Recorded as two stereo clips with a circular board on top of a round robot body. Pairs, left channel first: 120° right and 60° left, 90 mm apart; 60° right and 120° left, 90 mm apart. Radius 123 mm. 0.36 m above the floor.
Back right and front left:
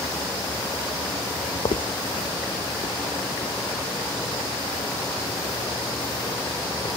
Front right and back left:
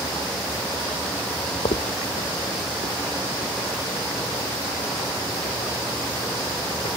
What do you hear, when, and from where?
1.6 s footsteps: 90° right, 0.6 m; by 6.9 s 75° right, 7 m